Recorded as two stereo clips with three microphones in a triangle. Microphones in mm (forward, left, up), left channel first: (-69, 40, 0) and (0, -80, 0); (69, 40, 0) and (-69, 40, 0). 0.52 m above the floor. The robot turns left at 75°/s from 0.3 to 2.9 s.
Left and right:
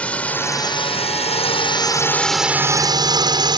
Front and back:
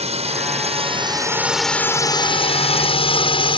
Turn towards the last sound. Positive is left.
turn(degrees=-20)